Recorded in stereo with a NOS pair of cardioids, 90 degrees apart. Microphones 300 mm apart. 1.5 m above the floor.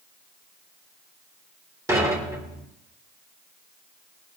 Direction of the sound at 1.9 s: 10° right.